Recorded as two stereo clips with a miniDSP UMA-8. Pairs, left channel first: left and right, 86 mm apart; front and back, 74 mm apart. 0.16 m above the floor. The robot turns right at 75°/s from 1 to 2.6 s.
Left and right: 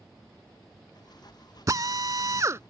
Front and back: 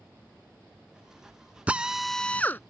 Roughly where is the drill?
Behind right.